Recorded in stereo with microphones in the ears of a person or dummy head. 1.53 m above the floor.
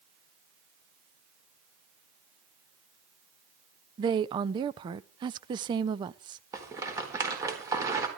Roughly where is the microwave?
No microwave in this recording.